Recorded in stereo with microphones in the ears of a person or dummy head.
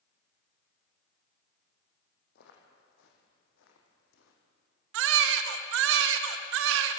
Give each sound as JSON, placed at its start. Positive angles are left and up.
{"t": 2.4, "sound": "footsteps", "side_deg": 65, "distance_m": 4.5}
{"t": 4.9, "sound": "a baby crying", "side_deg": -70, "distance_m": 1.5}